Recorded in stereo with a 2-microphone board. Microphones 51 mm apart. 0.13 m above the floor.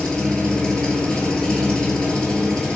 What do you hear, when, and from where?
0.0 s an engine running: 15° left (ahead or behind), 0.8 m